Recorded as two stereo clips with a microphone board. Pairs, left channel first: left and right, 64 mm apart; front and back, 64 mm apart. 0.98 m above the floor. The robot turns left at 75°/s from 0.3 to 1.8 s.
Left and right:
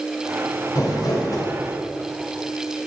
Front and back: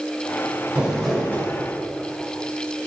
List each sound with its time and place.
0.8 s crumpling: 110° left, 3 m; by 1.5 s 55° left, 3 m